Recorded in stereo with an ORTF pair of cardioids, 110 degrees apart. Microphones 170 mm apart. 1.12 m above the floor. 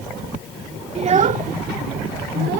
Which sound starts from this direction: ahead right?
A child speaking, at 0.9 s.